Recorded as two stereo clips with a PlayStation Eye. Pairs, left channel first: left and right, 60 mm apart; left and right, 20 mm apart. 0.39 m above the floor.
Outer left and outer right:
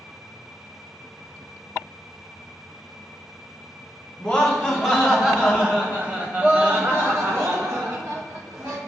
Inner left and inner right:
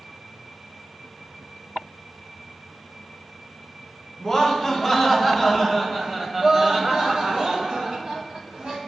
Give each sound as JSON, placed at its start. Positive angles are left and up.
{"t": 4.2, "sound": "laughter", "side_deg": 5, "distance_m": 2.5}